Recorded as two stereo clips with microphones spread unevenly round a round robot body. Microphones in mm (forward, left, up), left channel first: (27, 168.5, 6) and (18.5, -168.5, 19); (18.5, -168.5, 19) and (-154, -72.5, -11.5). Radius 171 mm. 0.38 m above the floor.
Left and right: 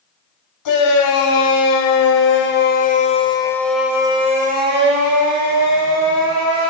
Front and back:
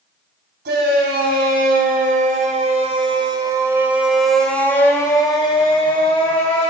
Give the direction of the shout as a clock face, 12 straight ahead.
8 o'clock.